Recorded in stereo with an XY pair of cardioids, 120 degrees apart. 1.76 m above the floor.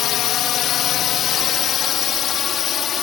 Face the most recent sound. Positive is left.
turn(degrees=50)